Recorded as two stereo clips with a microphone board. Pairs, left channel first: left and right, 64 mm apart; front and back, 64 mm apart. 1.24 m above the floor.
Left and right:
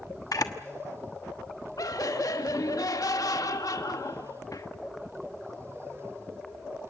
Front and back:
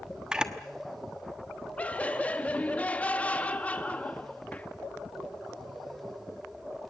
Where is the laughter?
70° left, 1.6 m.